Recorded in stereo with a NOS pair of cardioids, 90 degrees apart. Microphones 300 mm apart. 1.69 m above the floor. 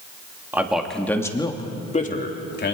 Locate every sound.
0.5 s a man speaking: 5° right, 2.5 m; by 2.8 s 40° left, 3 m